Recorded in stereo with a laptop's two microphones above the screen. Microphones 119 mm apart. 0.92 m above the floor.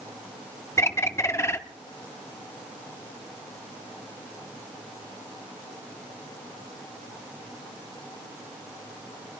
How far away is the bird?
About 0.6 m.